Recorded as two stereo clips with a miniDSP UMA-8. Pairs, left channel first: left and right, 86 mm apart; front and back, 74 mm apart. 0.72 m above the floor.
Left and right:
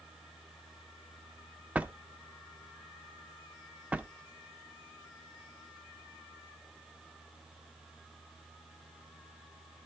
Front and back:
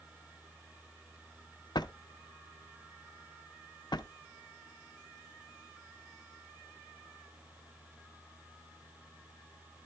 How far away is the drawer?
About 0.5 m.